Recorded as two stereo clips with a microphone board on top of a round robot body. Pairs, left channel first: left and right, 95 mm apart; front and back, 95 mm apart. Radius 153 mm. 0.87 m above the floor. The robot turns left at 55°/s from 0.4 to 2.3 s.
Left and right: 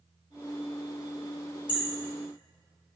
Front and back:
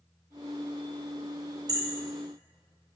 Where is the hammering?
135° left, 1.0 m; by 1.8 s 125° left, 1.0 m.